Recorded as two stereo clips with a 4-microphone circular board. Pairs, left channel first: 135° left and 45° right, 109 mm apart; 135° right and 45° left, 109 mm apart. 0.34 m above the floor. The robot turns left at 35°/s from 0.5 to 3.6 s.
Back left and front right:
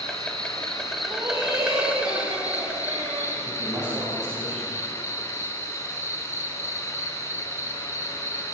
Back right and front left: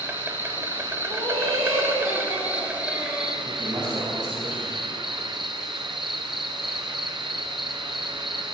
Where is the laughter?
25° left, 6 m; by 3.3 s 50° right, 6 m.